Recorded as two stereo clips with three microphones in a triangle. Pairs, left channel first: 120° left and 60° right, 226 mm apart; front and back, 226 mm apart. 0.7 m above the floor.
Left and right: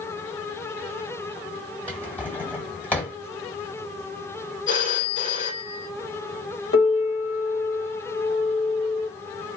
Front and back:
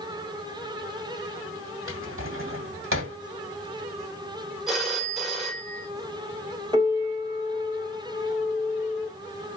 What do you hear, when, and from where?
1.9 s a drawer: 155° right, 1.5 m
4.7 s a phone ringing: 90° left, 1.6 m
6.7 s a piano: 110° left, 1.4 m